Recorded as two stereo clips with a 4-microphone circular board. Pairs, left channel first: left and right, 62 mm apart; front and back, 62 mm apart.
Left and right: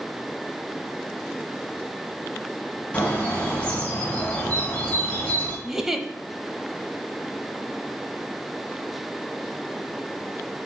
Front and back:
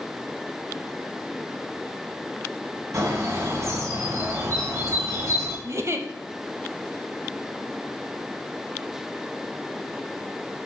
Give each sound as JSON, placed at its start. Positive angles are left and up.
{"t": 2.9, "sound": "a bird", "azimuth_deg": 155, "distance_m": 3.0}
{"t": 5.6, "sound": "a giggle", "azimuth_deg": -170, "distance_m": 0.8}